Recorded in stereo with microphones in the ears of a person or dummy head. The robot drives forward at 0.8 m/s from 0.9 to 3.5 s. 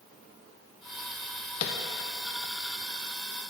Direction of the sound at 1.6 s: 45° left (ahead or behind).